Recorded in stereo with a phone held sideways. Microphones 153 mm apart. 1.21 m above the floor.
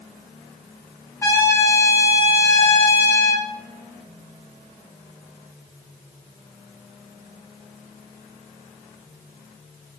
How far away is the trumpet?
About 0.6 m.